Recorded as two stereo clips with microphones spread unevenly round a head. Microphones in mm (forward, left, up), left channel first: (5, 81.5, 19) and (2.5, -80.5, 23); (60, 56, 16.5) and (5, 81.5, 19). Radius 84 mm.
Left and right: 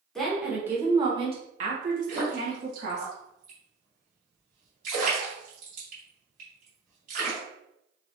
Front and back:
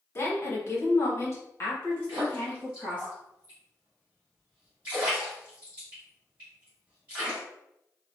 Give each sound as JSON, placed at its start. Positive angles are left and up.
{"t": 0.1, "sound": "a woman speaking", "azimuth_deg": 5, "distance_m": 1.3}
{"t": 2.1, "sound": "a splash", "azimuth_deg": -130, "distance_m": 1.9}